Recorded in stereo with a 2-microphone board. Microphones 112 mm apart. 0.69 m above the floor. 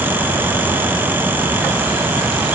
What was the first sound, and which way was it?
Only background noise.